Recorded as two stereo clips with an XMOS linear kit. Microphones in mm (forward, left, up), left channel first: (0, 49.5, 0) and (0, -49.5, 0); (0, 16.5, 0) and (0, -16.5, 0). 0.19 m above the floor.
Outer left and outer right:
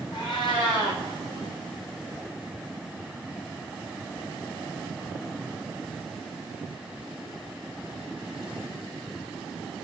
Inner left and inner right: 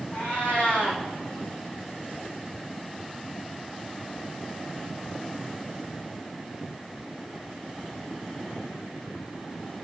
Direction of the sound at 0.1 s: 50° left (ahead or behind).